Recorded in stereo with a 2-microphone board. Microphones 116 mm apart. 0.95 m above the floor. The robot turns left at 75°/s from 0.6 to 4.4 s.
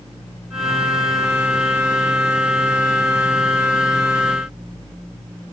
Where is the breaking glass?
I don't hear breaking glass.